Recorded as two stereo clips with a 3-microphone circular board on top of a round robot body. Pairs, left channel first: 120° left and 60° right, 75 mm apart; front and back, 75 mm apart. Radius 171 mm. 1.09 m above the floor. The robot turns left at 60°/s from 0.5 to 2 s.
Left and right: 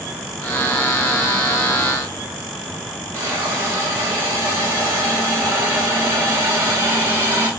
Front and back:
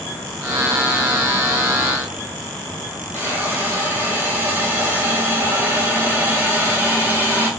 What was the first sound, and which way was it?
A hiss, 115° right.